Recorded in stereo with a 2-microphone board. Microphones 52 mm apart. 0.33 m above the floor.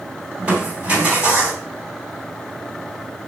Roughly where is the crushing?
Right.